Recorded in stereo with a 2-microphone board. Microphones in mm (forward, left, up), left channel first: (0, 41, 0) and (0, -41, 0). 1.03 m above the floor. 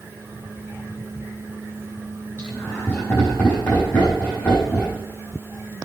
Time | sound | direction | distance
2.4 | laughter | 25° left (ahead or behind) | 6.5 m